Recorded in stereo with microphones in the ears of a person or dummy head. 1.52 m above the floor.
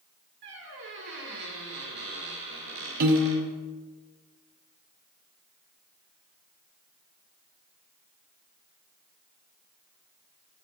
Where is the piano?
50° right (ahead or behind), 1.1 m.